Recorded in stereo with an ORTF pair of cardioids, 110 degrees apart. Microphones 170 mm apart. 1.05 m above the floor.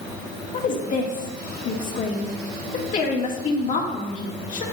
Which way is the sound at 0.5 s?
45° left.